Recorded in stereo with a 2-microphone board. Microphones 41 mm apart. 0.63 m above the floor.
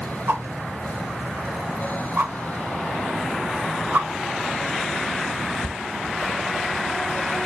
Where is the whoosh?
65° right (ahead or behind), 0.6 m.